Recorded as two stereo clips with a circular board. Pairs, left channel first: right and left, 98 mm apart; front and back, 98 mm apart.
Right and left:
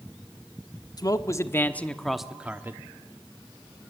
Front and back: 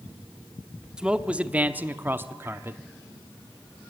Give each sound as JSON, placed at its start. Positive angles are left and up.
{"t": 1.0, "sound": "a man speaking", "azimuth_deg": -105, "distance_m": 1.1}